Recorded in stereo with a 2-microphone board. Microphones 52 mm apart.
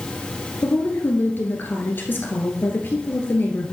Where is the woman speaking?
40° left (ahead or behind), 1.6 m.